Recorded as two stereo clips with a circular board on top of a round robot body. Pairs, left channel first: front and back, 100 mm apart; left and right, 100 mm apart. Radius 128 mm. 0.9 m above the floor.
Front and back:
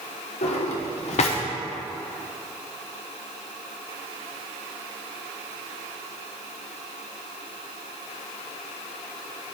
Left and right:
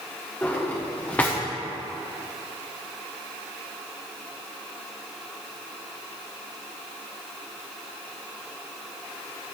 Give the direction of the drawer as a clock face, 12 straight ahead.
11 o'clock.